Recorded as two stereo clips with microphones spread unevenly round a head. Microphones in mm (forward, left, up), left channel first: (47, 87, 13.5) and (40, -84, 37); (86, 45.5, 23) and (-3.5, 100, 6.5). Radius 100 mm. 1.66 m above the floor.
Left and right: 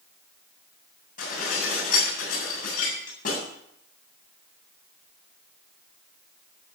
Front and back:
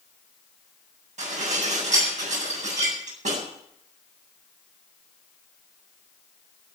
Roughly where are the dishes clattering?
Behind left.